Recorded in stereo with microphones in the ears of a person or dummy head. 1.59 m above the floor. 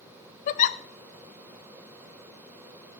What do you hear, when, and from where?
0.5 s a giggle: 45° left (ahead or behind), 0.6 m